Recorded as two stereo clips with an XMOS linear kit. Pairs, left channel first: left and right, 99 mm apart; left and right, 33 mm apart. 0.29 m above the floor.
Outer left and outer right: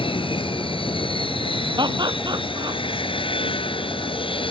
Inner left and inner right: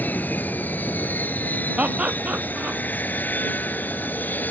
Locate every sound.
0.0 s an aircraft: 55° left (ahead or behind)
1.8 s laughter: 45° right (ahead or behind)